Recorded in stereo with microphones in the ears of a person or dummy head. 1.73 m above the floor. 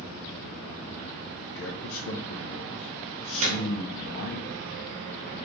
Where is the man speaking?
65° left (ahead or behind), 0.6 m.